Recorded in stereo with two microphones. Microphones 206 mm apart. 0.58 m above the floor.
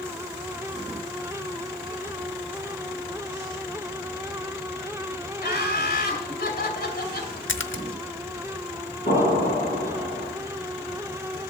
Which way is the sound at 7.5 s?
85° left.